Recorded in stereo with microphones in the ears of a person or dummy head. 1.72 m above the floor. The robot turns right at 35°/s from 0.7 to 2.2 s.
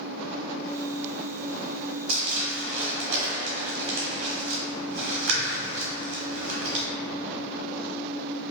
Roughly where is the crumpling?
Right.